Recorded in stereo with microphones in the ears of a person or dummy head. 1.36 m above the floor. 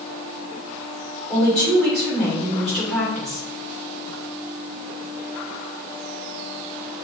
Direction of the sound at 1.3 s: 10° left (ahead or behind).